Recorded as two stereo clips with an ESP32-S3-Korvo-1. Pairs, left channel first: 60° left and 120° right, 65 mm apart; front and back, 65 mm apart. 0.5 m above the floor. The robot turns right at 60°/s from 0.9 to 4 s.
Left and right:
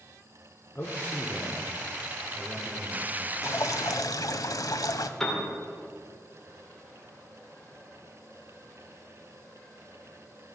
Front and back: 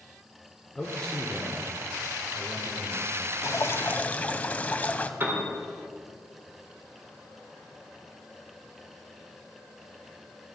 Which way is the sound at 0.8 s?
60° left.